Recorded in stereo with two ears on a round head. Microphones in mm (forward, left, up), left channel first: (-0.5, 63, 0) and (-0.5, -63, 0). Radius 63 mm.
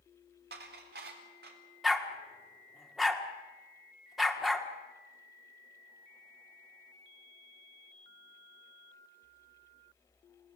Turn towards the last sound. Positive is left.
turn(degrees=0)  # may be behind; listen again after turning